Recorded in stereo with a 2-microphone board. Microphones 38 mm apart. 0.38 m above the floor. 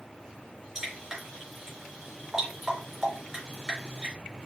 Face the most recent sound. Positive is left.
turn(degrees=-5)  # may be behind; listen again after turning